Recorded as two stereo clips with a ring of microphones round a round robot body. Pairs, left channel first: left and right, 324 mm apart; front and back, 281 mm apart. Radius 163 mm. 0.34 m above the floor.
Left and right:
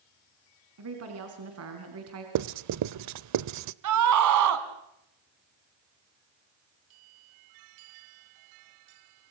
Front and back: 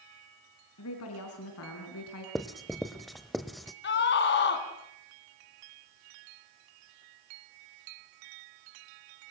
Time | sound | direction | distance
0.8 | a woman speaking | 45° right | 4 m
2.4 | writing | 90° right | 0.7 m
3.8 | a scream | 55° right | 3 m